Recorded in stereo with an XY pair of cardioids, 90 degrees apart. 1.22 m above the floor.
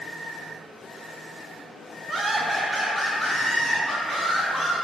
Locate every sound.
2.1 s laughter: 50° right, 0.6 m; by 4.7 s 40° left, 2 m